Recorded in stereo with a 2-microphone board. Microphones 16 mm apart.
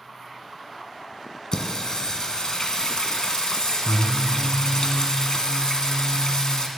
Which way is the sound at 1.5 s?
55° left (ahead or behind).